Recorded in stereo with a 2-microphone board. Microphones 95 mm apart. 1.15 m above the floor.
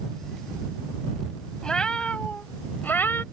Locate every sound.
1.6 s a cat meowing: 10° left (ahead or behind); by 3.2 s 25° left (ahead or behind)